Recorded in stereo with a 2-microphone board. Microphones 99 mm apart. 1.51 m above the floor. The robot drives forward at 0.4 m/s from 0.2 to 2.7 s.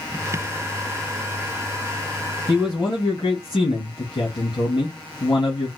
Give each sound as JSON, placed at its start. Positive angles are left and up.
{"t": 2.5, "sound": "a man speaking", "side_deg": 50, "distance_m": 3.0}